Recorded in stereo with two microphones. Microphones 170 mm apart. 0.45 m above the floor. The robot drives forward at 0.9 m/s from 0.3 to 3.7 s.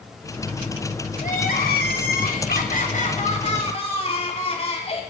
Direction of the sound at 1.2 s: 55° left (ahead or behind).